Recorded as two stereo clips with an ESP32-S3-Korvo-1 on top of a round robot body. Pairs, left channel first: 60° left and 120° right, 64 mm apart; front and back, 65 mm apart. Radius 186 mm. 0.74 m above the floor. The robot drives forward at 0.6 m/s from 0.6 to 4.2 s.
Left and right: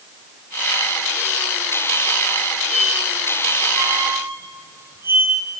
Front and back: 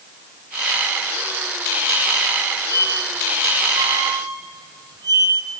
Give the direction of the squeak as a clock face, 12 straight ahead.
1 o'clock.